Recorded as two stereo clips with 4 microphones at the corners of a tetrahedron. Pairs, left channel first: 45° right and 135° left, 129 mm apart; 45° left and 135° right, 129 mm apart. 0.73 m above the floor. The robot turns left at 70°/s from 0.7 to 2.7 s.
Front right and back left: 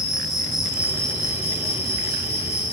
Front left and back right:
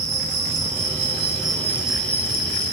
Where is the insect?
140° right, 1.5 m; by 2.7 s 80° left, 1.5 m.